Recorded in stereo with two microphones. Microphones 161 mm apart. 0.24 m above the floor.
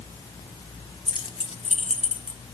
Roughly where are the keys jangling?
Left.